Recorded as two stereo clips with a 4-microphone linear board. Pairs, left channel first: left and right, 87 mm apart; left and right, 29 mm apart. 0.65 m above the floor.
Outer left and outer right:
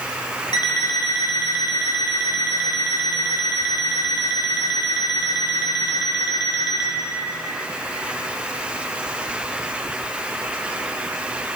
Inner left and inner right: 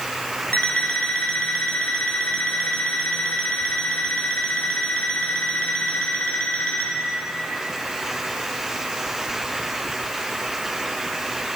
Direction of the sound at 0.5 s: 55° left (ahead or behind).